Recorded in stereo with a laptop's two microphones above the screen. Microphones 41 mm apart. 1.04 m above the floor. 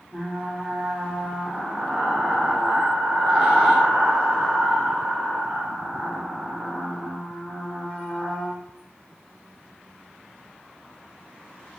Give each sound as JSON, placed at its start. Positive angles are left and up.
{"t": 0.1, "sound": "frying", "side_deg": -20, "distance_m": 1.5}